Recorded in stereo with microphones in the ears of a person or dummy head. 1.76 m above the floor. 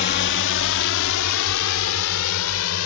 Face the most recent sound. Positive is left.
turn(degrees=90)